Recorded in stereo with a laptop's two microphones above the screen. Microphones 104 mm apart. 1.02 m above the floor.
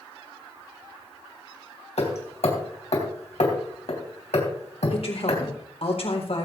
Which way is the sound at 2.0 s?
80° left.